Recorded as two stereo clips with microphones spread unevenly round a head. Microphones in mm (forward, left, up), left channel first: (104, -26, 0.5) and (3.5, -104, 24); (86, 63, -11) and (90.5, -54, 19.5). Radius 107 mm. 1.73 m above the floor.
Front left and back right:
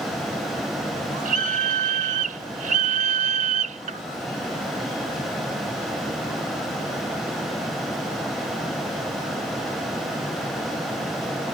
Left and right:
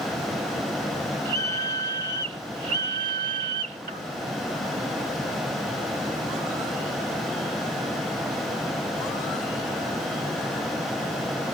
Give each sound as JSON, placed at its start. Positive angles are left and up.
{"t": 1.2, "sound": "a scream", "azimuth_deg": -145}